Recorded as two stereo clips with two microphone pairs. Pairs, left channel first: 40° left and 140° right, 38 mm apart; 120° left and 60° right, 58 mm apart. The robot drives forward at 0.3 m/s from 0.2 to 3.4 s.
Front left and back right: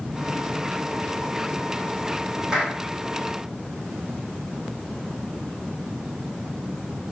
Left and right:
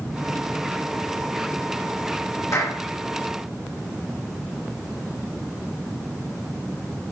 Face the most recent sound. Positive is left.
turn(degrees=150)